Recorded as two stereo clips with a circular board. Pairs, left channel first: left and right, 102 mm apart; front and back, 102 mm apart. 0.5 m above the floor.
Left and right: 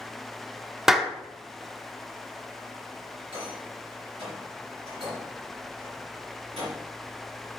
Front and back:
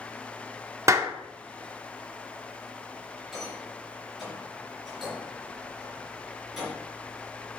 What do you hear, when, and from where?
0.9 s a clap: 175° right, 0.7 m
3.3 s a rattle: 90° right, 3 m